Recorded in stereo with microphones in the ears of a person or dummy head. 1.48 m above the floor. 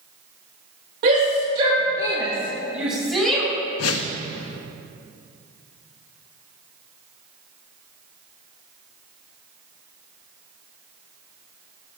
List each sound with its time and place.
1.0 s a shout: 60° right (ahead or behind), 1.6 m; by 3.5 s centre (ahead or behind), 3 m
3.8 s a whoosh: 80° left, 0.6 m